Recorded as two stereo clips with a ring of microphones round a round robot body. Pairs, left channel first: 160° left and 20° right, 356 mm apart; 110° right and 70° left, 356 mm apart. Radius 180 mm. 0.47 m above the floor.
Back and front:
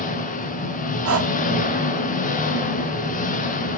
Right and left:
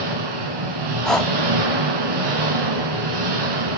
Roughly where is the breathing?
Ahead right.